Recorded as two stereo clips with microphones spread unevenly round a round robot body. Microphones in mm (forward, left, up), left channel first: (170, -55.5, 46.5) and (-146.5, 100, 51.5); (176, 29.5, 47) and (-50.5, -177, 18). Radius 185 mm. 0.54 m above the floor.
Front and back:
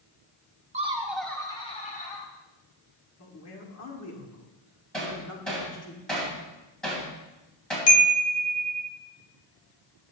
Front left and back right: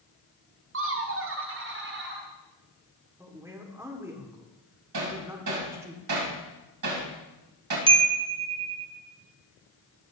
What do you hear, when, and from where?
0.7 s laughter: 140° right, 1.0 m; by 2.3 s 90° right, 1.7 m
3.2 s a man speaking: 60° right, 1.7 m
4.9 s hammering: 115° right, 3.5 m
7.9 s a chime: 80° right, 1.1 m